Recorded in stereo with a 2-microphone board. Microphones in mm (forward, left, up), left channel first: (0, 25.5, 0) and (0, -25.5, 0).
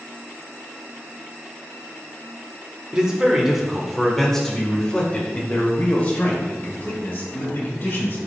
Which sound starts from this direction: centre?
A man speaking, at 2.9 s.